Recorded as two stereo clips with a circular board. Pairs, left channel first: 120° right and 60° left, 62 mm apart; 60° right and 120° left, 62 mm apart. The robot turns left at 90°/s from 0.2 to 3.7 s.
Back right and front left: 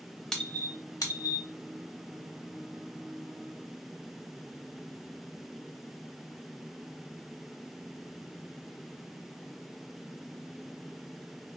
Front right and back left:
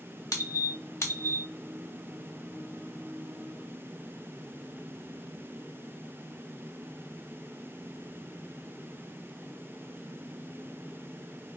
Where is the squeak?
40° right, 0.7 m; by 1.5 s 145° right, 0.7 m.